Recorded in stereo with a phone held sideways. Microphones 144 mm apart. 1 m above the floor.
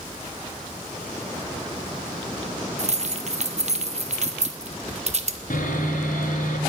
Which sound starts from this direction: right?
Keys jangling, at 2.8 s.